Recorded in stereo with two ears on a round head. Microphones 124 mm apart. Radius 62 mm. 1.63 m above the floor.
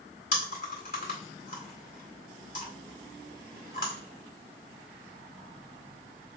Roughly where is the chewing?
Left.